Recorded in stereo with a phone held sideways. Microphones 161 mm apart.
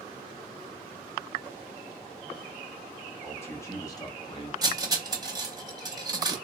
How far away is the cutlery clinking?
About 0.7 m.